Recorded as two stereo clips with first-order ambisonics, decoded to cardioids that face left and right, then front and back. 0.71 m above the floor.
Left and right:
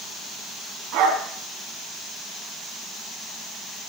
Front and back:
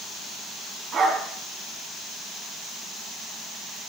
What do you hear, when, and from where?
0.9 s a dog barking: 120° right, 3 m